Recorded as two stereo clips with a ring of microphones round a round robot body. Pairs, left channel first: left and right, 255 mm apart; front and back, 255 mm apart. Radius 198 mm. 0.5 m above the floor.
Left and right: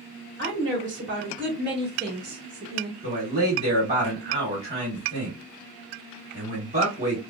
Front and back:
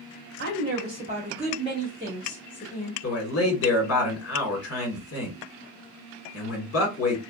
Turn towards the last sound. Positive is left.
turn(degrees=-25)